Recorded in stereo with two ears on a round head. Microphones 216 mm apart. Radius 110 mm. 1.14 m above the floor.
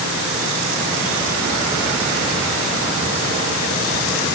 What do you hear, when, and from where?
Only background noise.